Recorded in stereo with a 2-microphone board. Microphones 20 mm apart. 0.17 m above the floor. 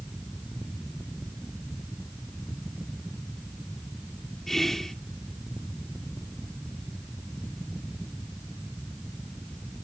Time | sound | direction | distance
4.5 | whispering | 20° left (ahead or behind) | 1.0 m